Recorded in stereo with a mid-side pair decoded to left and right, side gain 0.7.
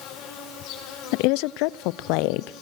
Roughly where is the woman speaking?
Left.